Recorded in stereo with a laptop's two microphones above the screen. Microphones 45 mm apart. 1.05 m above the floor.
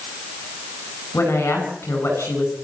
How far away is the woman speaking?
About 9.5 m.